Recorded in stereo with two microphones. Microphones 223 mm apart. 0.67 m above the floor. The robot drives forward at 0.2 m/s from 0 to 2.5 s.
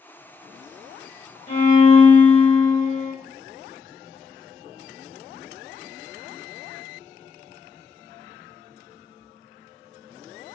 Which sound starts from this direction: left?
A violin, at 1.5 s.